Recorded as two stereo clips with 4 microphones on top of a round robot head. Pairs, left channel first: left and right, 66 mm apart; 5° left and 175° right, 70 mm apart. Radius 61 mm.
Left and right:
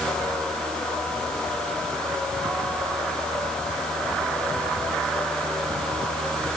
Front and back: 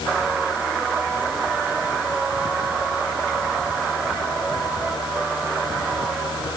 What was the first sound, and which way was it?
Only background noise.